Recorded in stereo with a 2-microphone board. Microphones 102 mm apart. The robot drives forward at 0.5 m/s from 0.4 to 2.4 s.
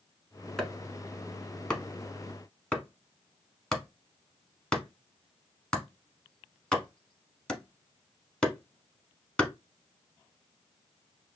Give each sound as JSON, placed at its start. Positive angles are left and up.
{"t": 0.6, "sound": "chopping", "side_deg": 5, "distance_m": 1.0}